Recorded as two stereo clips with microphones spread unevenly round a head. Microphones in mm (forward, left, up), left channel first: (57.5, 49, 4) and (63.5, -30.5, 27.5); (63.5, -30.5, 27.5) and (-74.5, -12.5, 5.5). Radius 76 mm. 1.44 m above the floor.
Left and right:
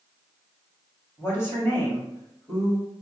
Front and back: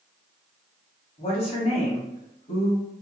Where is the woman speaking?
40° left, 1.8 m.